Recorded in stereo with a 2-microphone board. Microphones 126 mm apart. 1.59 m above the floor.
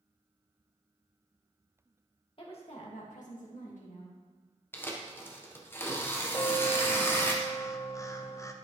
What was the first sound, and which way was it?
A woman speaking, 45° left (ahead or behind).